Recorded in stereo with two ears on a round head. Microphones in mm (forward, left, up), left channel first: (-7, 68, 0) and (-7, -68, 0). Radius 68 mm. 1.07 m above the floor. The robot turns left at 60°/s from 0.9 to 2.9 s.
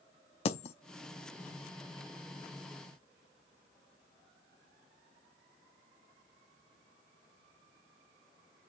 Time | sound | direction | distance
0.5 | a dropped coin | 40° left (ahead or behind) | 0.6 m